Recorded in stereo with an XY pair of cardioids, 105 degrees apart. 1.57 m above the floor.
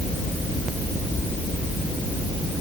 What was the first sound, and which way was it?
Only background noise.